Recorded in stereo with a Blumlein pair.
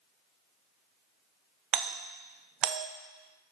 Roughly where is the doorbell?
Ahead right.